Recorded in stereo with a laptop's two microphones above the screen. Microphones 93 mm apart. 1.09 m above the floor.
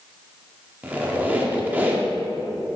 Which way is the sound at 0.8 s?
20° right (ahead or behind).